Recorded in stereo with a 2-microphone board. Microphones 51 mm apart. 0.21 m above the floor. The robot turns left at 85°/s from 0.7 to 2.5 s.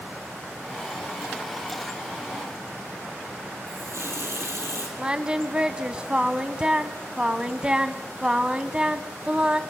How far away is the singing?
About 0.7 m.